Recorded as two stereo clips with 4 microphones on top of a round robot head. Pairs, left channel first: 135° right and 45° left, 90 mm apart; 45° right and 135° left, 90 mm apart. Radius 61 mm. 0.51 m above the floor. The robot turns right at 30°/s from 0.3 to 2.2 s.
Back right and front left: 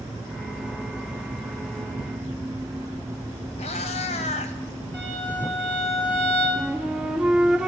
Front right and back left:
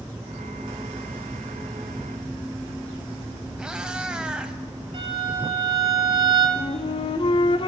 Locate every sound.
3.6 s a cat meowing: 145° right, 0.8 m
4.9 s a violin: 150° left, 4.5 m
6.6 s a flute: 40° right, 0.5 m